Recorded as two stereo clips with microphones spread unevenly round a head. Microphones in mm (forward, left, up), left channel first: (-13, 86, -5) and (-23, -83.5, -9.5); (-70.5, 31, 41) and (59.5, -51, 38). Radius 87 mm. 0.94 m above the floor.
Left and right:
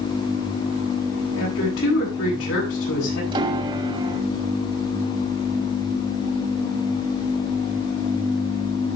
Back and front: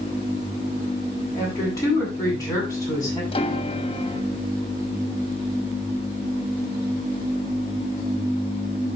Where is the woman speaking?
75° left, 9 m.